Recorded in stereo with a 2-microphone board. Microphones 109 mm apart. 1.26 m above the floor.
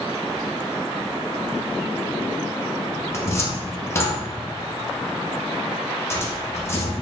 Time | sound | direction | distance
3.1 | a cupboard door | 25° left (ahead or behind) | 0.6 m